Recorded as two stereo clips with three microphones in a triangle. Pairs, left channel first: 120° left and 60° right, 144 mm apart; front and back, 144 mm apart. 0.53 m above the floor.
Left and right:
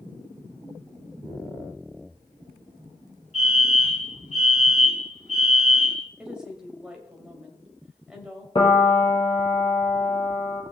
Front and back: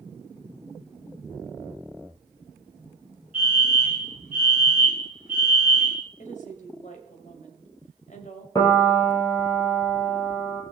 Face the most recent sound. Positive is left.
turn(degrees=65)